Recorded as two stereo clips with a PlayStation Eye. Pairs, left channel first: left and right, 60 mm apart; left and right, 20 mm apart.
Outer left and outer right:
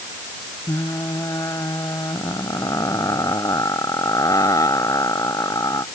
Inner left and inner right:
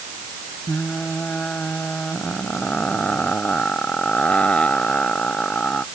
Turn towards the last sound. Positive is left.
turn(degrees=70)  # may be behind; listen again after turning